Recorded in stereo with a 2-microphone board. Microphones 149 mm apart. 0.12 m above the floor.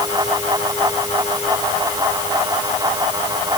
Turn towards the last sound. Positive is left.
No sound to turn to.